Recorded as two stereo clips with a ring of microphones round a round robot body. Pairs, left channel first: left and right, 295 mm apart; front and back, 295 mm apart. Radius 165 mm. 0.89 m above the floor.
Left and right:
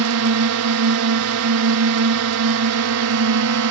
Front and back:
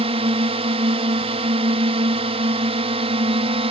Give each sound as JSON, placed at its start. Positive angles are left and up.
{"t": 0.0, "sound": "a drone", "azimuth_deg": -110}